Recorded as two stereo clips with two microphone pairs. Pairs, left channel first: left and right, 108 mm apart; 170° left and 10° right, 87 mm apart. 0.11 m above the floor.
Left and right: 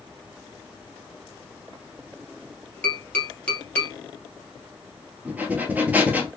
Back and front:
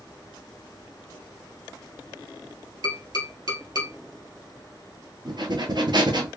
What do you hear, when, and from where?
2.8 s tapping: 20° left, 1.9 m
5.2 s breathing: 15° right, 1.0 m